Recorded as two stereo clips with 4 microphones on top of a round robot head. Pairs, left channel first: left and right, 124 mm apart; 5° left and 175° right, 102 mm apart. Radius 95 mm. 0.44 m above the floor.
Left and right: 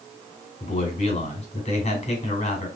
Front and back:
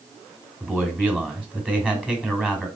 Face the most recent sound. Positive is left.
turn(degrees=110)